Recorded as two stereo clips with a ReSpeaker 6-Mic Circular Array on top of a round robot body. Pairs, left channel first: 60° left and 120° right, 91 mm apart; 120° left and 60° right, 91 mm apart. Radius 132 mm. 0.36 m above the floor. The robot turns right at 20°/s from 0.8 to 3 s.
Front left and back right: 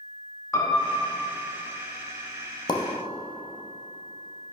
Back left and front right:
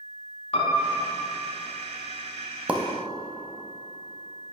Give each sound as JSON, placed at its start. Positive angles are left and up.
{"t": 0.5, "sound": "a piano", "azimuth_deg": 120, "distance_m": 1.2}
{"t": 2.7, "sound": "a pop", "azimuth_deg": 15, "distance_m": 0.6}